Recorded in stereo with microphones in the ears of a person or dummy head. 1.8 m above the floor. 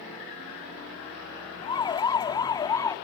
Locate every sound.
1.6 s a siren: 25° left (ahead or behind); by 3.0 s 15° left (ahead or behind)